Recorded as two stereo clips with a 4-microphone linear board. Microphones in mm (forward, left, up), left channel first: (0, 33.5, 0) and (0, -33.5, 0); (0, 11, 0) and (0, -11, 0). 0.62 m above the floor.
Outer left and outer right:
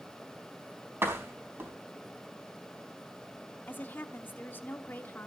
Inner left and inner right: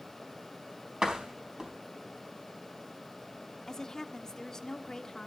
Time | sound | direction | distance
1.0 | a door slam | 35° right (ahead or behind) | 4 m
3.7 | a woman speaking | 30° left (ahead or behind) | 1.1 m